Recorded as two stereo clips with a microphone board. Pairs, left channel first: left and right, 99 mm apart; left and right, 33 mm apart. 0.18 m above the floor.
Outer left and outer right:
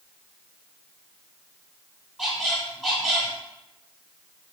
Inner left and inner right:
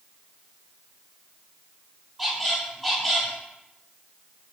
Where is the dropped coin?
I don't hear a dropped coin.